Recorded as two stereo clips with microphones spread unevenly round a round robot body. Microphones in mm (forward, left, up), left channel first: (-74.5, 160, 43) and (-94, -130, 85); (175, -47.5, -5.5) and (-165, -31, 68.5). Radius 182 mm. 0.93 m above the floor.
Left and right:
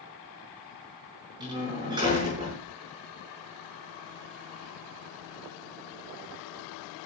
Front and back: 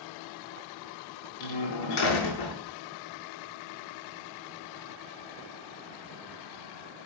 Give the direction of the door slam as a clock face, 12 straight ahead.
1 o'clock.